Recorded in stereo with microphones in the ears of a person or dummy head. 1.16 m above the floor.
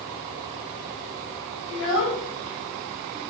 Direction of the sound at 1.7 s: 70° left (ahead or behind).